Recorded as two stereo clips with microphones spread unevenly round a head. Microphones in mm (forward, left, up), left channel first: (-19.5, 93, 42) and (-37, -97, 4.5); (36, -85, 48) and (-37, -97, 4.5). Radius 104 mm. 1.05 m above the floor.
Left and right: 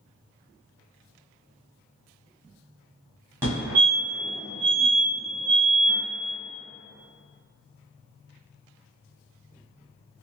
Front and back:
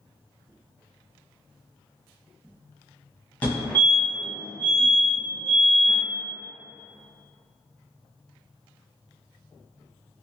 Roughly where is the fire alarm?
Behind right.